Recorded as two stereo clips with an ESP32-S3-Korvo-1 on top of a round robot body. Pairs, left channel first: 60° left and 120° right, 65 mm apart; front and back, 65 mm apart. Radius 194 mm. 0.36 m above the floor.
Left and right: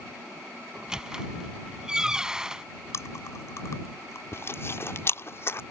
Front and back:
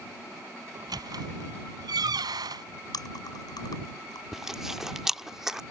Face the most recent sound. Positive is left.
turn(degrees=95)